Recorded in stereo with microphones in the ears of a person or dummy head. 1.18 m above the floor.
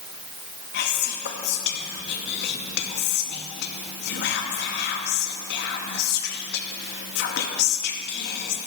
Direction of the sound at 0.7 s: 60° left (ahead or behind).